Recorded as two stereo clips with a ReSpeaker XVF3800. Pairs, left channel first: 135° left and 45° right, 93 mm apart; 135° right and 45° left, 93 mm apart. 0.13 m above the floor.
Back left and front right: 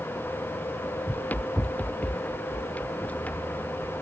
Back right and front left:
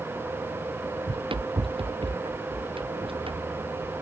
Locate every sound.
1.1 s running footsteps: 65° left; by 3.9 s 60° left